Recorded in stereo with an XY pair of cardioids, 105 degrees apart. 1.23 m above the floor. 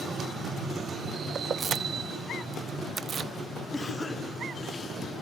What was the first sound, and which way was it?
Keys jangling, 50° right.